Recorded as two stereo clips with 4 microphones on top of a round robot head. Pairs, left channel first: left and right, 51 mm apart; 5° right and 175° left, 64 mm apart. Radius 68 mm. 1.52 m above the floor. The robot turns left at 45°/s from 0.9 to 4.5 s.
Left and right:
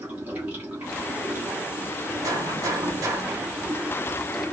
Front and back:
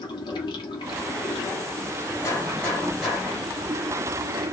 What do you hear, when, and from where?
0.0 s running water: 25° right, 1.2 m; by 4.5 s 175° left, 1.2 m
2.2 s a gunshot: 65° right, 1.3 m; by 3.4 s 115° right, 1.3 m